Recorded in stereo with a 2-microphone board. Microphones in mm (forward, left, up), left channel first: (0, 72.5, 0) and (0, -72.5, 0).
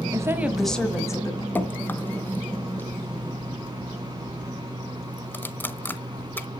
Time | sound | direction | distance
0.1 | a woman speaking | 25° right (ahead or behind) | 1.1 m
1.6 | dripping | 15° left (ahead or behind) | 0.6 m